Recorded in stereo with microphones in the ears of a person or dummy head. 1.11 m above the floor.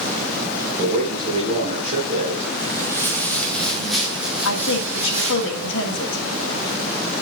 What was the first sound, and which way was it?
A man speaking, 40° right (ahead or behind).